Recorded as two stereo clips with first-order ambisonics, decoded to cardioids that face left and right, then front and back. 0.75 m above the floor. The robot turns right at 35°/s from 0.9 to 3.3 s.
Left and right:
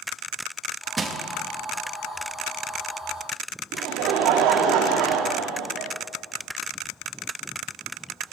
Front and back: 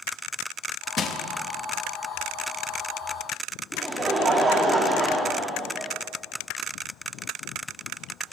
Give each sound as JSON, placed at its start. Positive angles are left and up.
{"t": 1.0, "sound": "crushing", "azimuth_deg": -30, "distance_m": 0.6}
{"t": 3.7, "sound": "laughter", "azimuth_deg": -105, "distance_m": 1.1}